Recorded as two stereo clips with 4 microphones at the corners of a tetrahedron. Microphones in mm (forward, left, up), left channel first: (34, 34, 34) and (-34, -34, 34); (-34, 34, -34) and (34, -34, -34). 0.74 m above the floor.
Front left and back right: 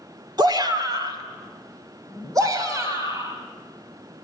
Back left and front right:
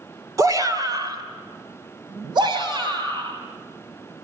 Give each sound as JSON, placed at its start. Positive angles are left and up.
{"t": 0.4, "sound": "a shout", "azimuth_deg": -95, "distance_m": 2.5}